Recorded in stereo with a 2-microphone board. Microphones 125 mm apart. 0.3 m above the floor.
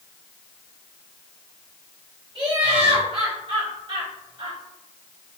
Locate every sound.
2.4 s laughter: 45° right (ahead or behind), 1.9 m